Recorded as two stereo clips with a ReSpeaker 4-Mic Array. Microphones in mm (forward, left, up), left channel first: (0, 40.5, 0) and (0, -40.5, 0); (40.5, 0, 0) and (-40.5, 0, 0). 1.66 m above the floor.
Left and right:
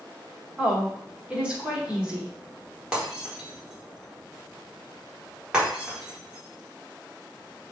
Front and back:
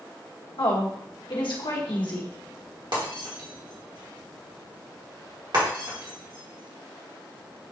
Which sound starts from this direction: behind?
Breaking glass, at 2.9 s.